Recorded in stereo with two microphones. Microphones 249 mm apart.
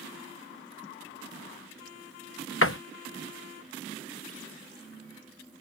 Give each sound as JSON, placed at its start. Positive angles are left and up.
{"t": 2.6, "sound": "a door slam", "side_deg": 55}